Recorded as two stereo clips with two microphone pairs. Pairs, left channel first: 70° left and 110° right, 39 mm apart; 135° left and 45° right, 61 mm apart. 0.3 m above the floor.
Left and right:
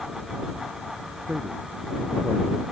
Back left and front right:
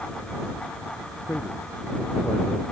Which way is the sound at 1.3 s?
165° right.